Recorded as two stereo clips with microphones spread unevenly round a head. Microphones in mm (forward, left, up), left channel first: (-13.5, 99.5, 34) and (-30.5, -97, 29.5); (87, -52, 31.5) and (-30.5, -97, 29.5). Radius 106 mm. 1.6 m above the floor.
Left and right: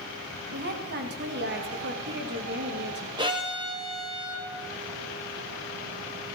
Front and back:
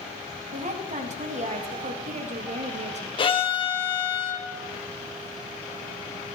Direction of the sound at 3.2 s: 25° right.